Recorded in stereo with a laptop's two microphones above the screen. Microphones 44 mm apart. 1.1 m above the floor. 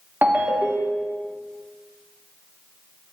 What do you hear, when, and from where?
0.2 s a ringtone: 45° right (ahead or behind), 1.2 m